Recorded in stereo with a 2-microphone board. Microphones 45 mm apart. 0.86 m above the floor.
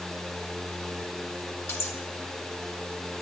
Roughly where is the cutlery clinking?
Left.